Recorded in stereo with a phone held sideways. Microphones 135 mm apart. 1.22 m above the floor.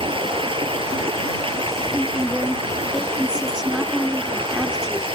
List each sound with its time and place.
0.0 s running water: 40° right (ahead or behind)
1.9 s a woman speaking: 5° right (ahead or behind)